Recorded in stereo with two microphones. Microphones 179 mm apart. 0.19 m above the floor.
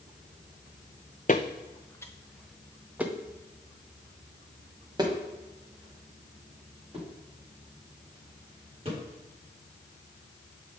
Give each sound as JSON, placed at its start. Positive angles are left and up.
{"t": 1.3, "sound": "footsteps", "side_deg": 45, "distance_m": 0.7}